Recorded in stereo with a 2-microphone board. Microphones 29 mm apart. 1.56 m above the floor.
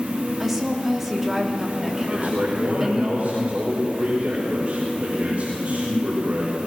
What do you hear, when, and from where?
0.4 s a woman speaking: 5° right (ahead or behind), 2.5 m
2.1 s a man speaking: 50° right (ahead or behind), 6 m